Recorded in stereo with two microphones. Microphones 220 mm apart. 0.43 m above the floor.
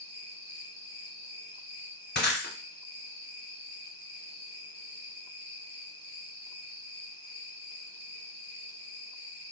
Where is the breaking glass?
50° left (ahead or behind), 0.8 m.